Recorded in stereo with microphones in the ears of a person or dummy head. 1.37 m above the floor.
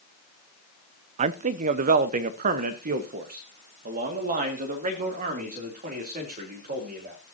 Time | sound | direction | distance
1.2 | a man speaking | 40° right (ahead or behind) | 0.5 m